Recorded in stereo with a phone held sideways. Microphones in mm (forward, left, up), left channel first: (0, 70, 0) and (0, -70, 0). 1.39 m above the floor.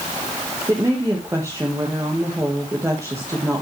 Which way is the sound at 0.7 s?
20° right (ahead or behind).